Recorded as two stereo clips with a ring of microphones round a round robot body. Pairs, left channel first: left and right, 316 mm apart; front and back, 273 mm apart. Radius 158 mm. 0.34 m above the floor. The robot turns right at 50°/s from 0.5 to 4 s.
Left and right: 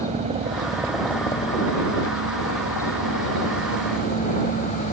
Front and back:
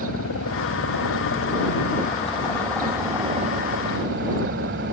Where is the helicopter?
25° right; by 4.9 s 150° left.